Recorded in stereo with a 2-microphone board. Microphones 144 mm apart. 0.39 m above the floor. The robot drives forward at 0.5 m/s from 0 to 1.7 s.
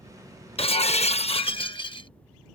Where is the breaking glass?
40° left (ahead or behind); by 2.1 s 35° left (ahead or behind).